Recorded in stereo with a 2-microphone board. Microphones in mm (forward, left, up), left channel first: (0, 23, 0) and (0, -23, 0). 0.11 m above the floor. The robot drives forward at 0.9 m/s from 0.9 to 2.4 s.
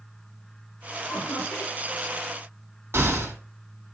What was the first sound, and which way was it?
Laughter, 75° left (ahead or behind).